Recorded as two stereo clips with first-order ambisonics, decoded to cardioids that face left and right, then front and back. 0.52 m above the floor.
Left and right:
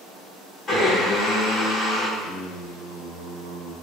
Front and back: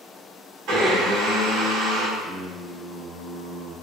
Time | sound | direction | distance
0.7 | a blender | 155° left | 1.9 m
2.2 | singing | 100° right | 1.7 m